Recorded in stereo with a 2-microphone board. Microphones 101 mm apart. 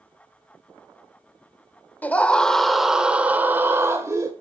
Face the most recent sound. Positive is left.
turn(degrees=-35)  # may be behind; listen again after turning